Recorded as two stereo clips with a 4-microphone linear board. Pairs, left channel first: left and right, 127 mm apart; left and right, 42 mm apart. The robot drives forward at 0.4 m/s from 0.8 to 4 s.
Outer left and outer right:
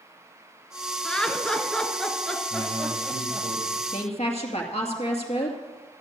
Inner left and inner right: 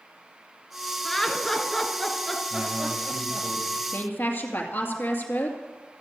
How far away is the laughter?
About 1.3 m.